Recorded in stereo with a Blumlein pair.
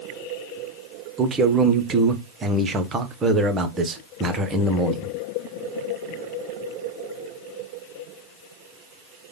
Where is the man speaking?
20° right, 0.9 m.